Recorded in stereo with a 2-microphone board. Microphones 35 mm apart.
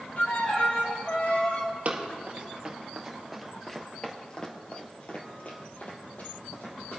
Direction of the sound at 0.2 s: 45° left (ahead or behind).